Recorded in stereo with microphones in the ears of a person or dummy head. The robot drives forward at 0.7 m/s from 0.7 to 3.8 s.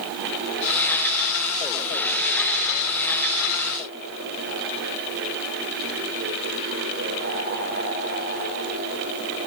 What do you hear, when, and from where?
Only background noise.